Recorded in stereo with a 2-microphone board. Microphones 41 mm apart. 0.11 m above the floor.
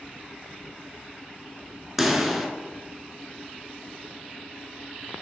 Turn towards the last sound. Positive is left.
turn(degrees=-5)  # may be behind; listen again after turning